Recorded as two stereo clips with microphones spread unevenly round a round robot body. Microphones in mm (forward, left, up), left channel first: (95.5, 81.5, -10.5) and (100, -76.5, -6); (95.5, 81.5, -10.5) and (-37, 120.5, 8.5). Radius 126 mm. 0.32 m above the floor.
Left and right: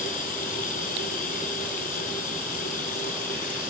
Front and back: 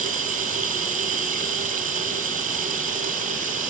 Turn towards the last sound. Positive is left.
turn(degrees=140)